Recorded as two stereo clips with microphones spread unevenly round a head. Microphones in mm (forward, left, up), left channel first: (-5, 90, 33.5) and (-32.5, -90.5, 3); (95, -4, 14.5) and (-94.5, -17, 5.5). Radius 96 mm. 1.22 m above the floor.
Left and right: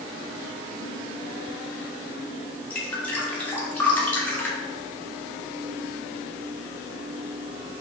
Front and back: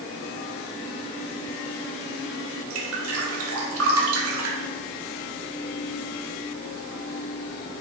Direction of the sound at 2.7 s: 165° left.